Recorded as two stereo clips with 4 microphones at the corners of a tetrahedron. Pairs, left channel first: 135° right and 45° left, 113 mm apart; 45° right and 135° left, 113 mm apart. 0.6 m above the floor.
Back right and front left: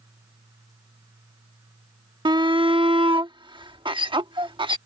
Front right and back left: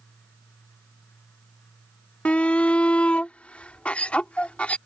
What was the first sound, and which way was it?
A shout, 30° left.